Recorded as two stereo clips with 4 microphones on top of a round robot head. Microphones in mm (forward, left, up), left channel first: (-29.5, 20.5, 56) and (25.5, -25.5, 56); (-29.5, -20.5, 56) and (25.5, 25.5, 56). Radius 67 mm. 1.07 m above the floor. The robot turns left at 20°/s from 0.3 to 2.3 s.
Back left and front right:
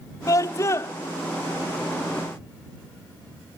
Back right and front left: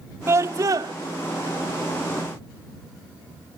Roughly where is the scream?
Left.